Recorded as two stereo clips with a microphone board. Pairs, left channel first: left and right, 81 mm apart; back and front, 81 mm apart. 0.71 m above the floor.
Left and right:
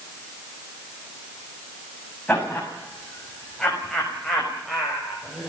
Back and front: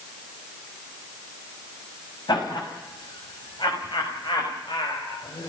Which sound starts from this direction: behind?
Laughter, at 2.3 s.